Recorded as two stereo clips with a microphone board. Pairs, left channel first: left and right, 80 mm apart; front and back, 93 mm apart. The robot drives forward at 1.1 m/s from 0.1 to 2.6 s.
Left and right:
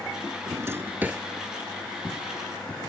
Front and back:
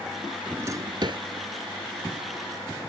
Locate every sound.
0.5 s a drawer: 105° right; by 1.2 s 160° right